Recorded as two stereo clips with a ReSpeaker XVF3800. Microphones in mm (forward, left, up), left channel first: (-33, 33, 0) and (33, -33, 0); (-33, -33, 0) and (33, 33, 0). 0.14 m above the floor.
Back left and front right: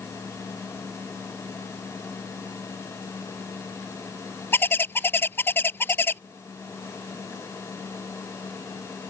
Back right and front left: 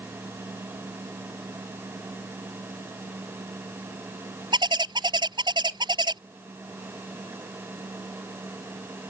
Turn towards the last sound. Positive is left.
turn(degrees=70)